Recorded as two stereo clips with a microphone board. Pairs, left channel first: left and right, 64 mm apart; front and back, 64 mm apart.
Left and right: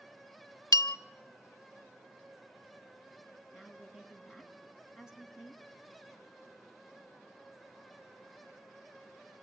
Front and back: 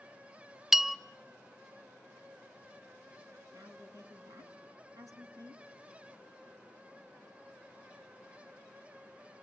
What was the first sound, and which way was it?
A bell, 95° left.